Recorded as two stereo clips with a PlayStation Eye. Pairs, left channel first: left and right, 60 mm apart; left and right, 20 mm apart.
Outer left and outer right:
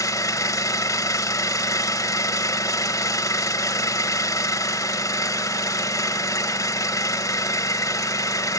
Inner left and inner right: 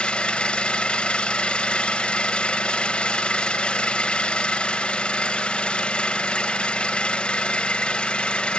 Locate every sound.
0.0 s an engine running: 65° left (ahead or behind), 0.9 m